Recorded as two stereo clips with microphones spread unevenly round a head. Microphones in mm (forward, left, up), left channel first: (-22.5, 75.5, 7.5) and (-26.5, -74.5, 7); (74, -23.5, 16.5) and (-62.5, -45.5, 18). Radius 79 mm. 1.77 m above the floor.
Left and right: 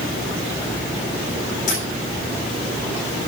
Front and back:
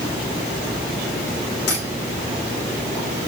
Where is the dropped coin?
40° left, 8.5 m.